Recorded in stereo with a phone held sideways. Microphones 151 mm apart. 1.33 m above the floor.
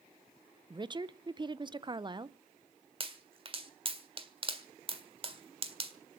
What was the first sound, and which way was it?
A woman speaking, 30° right (ahead or behind).